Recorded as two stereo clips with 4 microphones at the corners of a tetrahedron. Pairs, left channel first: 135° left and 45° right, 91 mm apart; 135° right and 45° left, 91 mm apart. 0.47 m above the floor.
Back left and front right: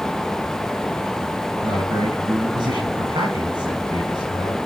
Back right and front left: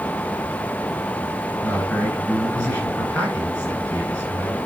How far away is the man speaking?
About 8.5 m.